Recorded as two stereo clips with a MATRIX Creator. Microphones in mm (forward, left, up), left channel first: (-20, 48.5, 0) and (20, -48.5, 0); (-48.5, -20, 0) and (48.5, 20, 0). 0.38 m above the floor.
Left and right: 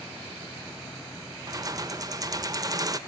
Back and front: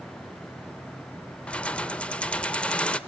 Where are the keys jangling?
85° right, 0.6 m.